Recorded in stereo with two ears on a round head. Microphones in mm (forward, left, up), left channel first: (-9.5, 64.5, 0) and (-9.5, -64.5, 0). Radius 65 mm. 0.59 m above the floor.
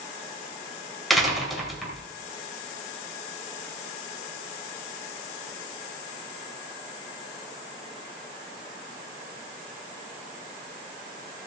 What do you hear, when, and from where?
1.1 s a door slam: centre (ahead or behind), 2.5 m